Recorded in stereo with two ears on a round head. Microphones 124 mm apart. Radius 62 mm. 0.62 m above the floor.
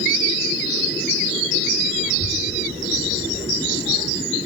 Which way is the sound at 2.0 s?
25° right (ahead or behind).